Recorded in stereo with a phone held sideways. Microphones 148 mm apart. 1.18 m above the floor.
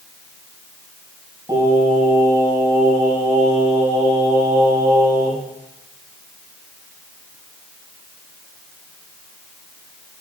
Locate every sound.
1.5 s singing: 25° right (ahead or behind), 7 m